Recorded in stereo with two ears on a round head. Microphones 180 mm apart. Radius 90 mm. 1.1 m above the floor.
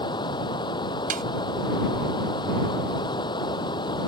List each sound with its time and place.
0.0 s running water: 25° left (ahead or behind)
1.1 s a snare drum: 40° right (ahead or behind)